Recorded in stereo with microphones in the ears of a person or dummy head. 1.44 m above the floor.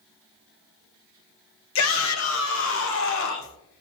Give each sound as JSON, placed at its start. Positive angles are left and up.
{"t": 1.8, "sound": "a shout", "side_deg": 70, "distance_m": 1.3}